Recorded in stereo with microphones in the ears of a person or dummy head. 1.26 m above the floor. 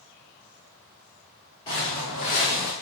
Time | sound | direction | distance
1.7 | footsteps | 20° left (ahead or behind) | 1.6 m